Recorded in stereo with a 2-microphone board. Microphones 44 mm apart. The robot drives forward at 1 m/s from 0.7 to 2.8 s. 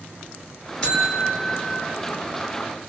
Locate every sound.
0.8 s a buzzer: 10° left (ahead or behind), 2 m; by 1.9 s 25° left (ahead or behind), 1.1 m